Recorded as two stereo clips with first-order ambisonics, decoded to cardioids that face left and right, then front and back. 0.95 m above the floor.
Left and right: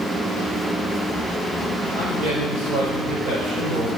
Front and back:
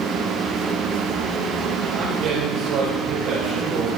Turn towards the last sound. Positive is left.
turn(degrees=-140)